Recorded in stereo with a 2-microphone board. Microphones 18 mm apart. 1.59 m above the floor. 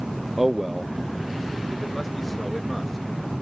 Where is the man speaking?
15° right (ahead or behind); by 3.0 s 20° left (ahead or behind).